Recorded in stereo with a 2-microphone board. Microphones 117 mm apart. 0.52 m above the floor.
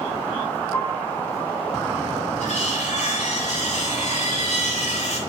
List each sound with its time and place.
0.7 s a piano: 20° left (ahead or behind), 2.5 m
2.4 s cutlery clinking: 75° left (ahead or behind), 5 m